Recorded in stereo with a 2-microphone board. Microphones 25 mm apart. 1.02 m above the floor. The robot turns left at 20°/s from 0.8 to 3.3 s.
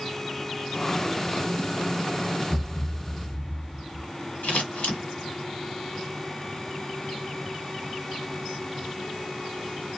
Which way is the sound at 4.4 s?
75° left (ahead or behind).